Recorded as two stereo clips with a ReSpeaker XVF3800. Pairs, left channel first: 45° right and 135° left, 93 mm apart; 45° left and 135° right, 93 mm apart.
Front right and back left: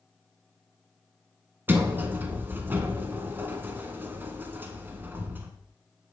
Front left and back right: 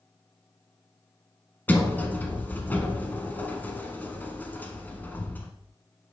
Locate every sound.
1.7 s a sliding door: 95° left, 0.9 m